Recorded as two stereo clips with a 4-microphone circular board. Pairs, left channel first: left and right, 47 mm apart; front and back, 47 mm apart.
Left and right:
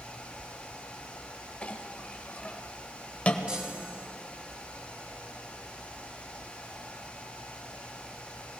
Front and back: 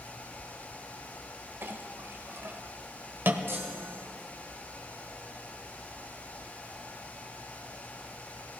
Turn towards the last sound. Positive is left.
turn(degrees=-155)